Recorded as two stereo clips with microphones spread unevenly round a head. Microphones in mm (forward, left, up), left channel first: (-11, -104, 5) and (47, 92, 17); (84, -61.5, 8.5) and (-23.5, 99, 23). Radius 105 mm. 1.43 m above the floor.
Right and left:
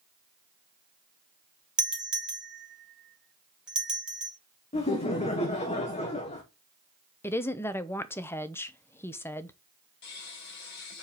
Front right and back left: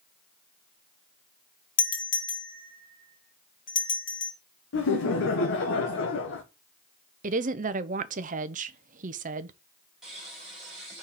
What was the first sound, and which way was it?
A doorbell, 15° right.